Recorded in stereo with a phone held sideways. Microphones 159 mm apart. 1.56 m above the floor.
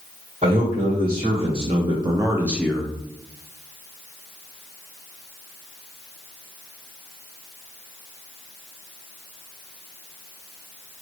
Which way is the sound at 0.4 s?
40° right (ahead or behind).